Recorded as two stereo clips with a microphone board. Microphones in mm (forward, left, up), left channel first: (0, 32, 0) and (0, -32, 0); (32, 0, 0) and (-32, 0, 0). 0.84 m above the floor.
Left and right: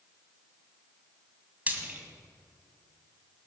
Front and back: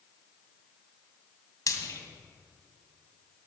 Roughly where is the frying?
Ahead right.